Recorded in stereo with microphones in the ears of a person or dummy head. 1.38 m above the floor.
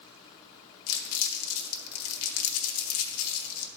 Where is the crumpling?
80° left, 1.2 m.